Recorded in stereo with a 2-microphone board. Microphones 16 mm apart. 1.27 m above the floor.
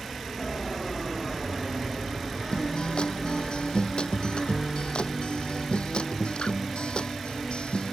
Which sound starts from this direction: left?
A guitar, at 2.5 s.